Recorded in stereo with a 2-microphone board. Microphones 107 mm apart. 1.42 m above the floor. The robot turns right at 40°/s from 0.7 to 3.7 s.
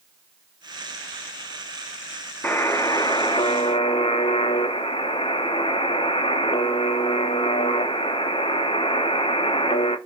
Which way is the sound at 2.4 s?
20° left.